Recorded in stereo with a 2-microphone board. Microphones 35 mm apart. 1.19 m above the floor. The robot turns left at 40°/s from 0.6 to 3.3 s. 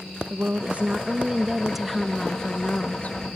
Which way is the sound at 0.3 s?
130° right.